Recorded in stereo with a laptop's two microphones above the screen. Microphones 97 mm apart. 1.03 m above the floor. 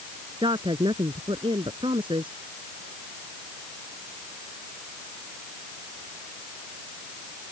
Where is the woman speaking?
55° right (ahead or behind).